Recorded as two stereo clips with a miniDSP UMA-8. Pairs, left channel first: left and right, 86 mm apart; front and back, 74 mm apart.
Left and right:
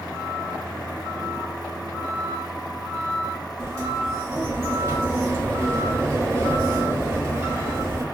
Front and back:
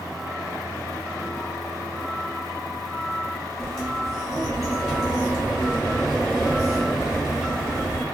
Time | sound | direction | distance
3.6 | a sliding door | 105° right | 1.2 m